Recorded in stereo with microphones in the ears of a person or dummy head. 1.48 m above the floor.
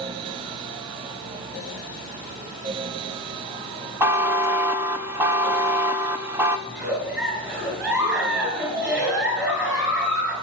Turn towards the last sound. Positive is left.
turn(degrees=-15)  # may be behind; listen again after turning